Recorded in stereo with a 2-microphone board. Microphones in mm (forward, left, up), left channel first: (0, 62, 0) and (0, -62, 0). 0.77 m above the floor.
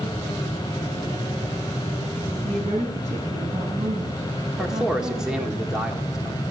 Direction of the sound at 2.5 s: 75° right (ahead or behind).